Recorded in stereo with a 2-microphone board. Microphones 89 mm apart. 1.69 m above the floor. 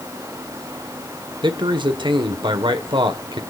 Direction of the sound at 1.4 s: 60° right (ahead or behind).